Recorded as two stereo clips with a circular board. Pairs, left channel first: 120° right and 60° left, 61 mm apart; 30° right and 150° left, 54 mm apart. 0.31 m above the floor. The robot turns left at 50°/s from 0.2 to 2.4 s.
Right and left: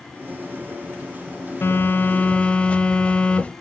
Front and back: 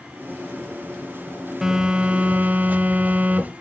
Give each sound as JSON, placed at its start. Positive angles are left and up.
{"t": 1.6, "sound": "a phone buzzing", "azimuth_deg": -135, "distance_m": 0.8}